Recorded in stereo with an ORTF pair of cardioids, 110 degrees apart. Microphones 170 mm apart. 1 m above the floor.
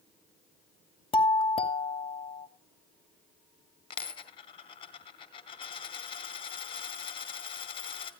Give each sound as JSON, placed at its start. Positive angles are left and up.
{"t": 1.1, "sound": "a doorbell", "azimuth_deg": 35, "distance_m": 2.0}
{"t": 3.9, "sound": "a dropped coin", "azimuth_deg": 30, "distance_m": 2.5}